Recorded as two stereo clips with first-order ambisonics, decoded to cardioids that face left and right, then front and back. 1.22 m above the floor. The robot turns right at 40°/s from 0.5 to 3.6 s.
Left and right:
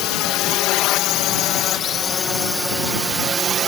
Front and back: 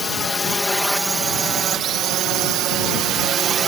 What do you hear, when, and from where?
0.0 s a drone: 75° left; by 3.7 s 130° right